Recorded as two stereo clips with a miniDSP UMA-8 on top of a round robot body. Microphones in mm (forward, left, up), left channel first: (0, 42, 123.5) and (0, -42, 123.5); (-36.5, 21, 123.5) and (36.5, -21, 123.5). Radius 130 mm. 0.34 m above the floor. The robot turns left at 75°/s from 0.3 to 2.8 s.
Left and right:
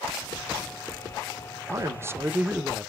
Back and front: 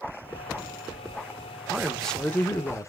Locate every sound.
1.7 s a man speaking: 105° right, 1.0 m; by 2.9 s 175° left, 1.0 m